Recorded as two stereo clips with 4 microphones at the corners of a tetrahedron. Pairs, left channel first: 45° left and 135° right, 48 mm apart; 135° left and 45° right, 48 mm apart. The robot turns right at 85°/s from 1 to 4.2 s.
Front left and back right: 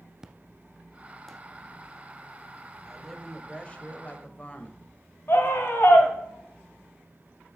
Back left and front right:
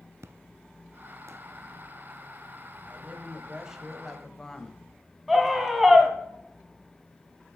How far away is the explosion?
About 0.5 m.